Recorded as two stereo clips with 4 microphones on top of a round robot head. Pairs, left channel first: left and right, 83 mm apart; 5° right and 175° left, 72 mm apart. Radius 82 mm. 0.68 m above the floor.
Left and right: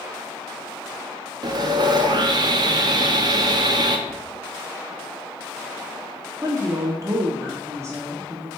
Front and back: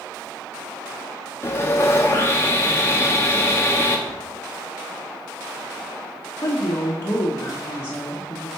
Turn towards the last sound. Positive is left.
turn(degrees=-50)